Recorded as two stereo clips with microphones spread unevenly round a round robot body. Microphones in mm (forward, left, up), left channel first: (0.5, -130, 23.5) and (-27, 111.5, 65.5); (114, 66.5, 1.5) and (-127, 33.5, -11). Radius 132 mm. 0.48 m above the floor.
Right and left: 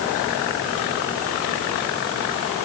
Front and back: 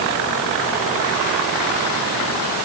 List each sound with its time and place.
Only background noise.